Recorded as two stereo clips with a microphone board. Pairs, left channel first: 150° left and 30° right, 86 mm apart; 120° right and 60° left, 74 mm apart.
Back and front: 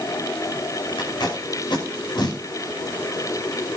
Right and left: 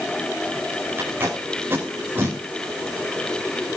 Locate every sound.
1.0 s tape being pulled: 120° left, 5.5 m